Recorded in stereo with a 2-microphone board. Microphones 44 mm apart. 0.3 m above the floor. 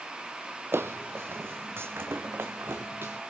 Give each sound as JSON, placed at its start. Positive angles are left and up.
{"t": 0.7, "sound": "footsteps", "side_deg": -70, "distance_m": 0.6}